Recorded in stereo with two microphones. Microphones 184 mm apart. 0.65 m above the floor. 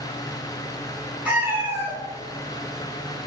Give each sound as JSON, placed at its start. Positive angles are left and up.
{"t": 1.2, "sound": "a cat meowing", "side_deg": -10, "distance_m": 1.1}